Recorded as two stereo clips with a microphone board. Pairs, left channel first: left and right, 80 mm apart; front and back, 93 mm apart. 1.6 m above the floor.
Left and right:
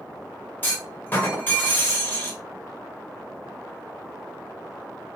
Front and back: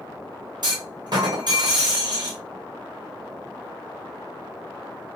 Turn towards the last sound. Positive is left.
turn(degrees=150)